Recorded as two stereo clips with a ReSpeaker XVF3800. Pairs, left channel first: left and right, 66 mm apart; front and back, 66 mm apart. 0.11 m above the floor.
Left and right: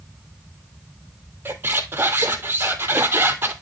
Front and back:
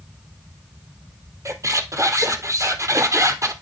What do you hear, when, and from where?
1.4 s a squeak: 145° right, 0.8 m